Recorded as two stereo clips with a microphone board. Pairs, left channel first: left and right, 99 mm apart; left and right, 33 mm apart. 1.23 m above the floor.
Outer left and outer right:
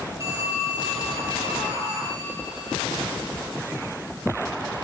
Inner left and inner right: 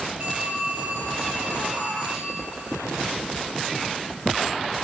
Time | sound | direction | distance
0.2 | a phone ringing | 30° right (ahead or behind) | 10 m